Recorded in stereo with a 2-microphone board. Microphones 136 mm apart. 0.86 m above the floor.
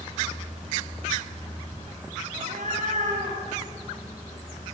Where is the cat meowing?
65° right (ahead or behind), 6.5 m; by 3.4 s 60° right (ahead or behind), 7 m.